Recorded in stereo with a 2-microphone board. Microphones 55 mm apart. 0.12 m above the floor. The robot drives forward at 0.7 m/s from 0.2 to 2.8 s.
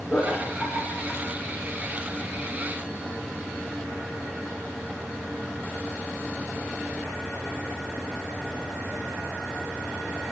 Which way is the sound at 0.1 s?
10° left (ahead or behind).